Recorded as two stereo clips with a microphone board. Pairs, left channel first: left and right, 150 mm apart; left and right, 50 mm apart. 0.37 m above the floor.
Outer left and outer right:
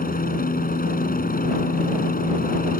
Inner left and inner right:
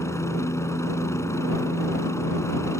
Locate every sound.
0.0 s a helicopter: 70° left (ahead or behind)